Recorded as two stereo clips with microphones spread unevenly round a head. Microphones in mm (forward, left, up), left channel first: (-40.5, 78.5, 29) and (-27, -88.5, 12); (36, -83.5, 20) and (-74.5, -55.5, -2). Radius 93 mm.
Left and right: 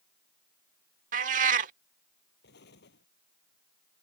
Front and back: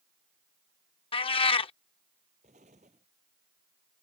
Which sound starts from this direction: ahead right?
A cat meowing, at 1.1 s.